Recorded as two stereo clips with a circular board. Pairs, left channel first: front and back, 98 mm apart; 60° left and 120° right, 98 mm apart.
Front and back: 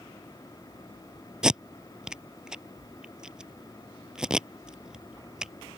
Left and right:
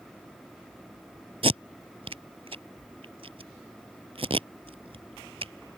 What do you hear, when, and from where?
1.4 s tape being pulled: 100° right